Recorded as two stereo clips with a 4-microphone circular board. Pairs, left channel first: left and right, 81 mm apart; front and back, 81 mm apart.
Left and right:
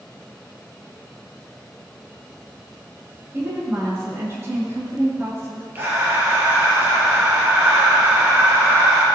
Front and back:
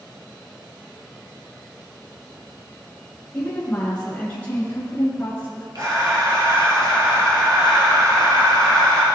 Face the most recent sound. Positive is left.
turn(degrees=-150)